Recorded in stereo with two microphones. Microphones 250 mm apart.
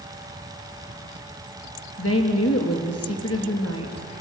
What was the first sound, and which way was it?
A woman speaking, 70° left (ahead or behind).